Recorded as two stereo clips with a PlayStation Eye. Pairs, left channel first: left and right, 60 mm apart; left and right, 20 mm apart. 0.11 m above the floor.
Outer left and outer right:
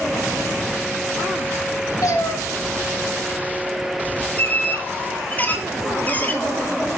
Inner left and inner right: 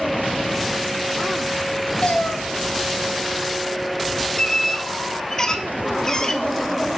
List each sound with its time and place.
2.0 s a cat meowing: 80° left, 3 m
4.4 s a squeak: 30° left (ahead or behind), 1.5 m